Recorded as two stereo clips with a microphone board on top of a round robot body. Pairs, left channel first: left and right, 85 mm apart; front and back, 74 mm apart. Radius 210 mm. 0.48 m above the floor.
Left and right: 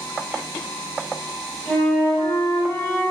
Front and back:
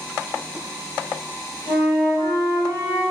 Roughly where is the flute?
Behind.